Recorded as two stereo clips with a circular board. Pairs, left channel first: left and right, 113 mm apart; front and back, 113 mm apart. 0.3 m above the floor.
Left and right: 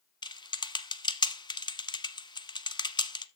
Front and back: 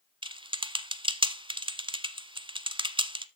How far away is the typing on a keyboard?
About 0.7 m.